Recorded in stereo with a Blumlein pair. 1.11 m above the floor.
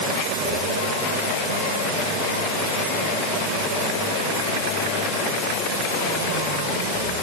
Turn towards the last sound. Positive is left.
No sound to turn to.